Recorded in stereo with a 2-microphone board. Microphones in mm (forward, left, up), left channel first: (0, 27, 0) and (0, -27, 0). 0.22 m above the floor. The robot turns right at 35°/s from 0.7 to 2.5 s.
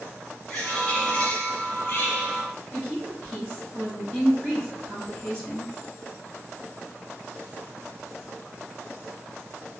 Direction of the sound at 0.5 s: 20° left.